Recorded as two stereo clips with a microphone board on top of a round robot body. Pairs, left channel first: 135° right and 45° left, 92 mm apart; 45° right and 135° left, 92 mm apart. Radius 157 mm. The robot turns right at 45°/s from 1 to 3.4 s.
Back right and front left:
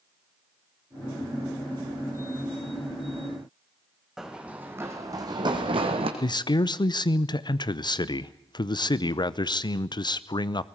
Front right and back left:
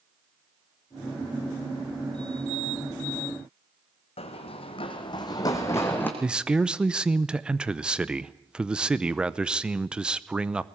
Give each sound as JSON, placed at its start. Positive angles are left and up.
{"t": 4.2, "sound": "running footsteps", "azimuth_deg": -35, "distance_m": 3.0}
{"t": 6.2, "sound": "a man speaking", "azimuth_deg": -145, "distance_m": 0.9}